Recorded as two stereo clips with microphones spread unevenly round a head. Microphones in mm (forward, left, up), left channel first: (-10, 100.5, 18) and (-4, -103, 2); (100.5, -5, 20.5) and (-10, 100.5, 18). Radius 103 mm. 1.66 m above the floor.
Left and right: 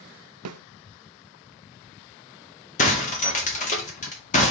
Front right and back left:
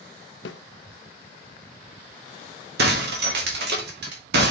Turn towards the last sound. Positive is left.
turn(degrees=145)